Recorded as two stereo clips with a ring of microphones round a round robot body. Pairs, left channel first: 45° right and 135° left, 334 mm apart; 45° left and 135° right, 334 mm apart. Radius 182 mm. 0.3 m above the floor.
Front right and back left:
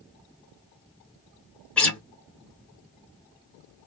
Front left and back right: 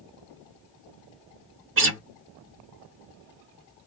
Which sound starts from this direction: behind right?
A guitar, at 1.8 s.